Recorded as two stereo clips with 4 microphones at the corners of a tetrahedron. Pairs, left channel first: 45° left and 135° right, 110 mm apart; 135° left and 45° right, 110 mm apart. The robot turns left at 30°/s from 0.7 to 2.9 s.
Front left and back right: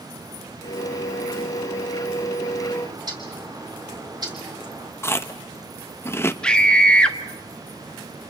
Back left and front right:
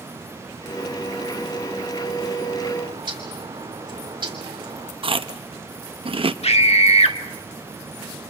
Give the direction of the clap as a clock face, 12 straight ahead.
No clap in this recording.